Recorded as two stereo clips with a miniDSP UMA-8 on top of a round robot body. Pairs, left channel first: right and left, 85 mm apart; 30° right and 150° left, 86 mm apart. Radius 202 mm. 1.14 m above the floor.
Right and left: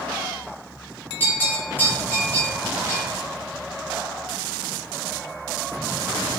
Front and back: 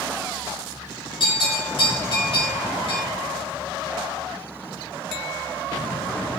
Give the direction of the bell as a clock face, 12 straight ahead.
1 o'clock.